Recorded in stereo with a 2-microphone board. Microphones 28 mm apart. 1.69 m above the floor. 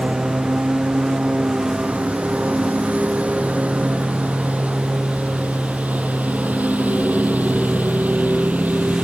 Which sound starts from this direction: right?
A lawn mower, at 0.0 s.